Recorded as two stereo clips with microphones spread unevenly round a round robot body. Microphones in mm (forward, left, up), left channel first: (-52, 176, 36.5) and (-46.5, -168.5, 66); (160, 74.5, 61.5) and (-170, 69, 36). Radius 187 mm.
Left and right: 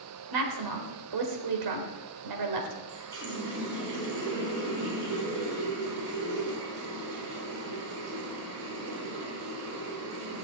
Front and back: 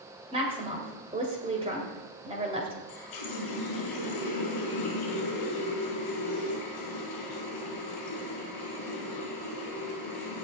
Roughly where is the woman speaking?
Right.